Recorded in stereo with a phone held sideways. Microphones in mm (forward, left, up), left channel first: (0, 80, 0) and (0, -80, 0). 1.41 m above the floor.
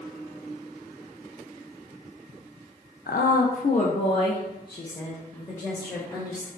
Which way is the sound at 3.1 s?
70° left (ahead or behind).